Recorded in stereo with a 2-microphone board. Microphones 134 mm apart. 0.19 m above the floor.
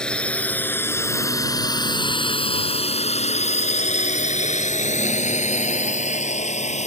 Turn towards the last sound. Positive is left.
turn(degrees=60)  # may be behind; listen again after turning